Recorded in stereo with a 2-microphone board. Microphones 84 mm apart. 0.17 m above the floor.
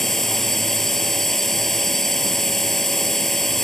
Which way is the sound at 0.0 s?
5° left (ahead or behind).